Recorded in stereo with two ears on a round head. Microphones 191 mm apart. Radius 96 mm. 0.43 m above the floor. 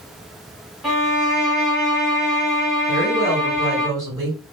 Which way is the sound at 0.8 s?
Centre (ahead or behind).